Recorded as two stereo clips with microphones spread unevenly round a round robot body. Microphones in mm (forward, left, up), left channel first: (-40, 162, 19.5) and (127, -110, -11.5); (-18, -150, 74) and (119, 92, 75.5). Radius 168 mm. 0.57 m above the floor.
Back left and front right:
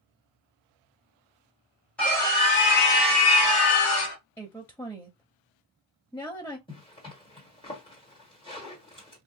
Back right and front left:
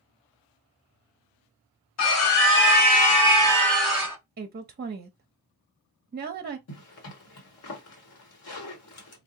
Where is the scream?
150° right, 1.3 m; by 4.2 s 145° left, 1.5 m.